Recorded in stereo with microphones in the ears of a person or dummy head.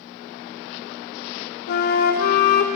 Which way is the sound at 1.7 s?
60° left (ahead or behind).